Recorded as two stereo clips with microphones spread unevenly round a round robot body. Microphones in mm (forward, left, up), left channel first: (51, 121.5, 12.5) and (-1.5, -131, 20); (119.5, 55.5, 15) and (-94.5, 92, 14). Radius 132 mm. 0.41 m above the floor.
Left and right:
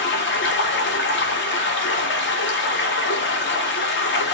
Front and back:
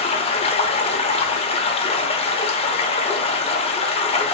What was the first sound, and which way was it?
Running water, 50° left.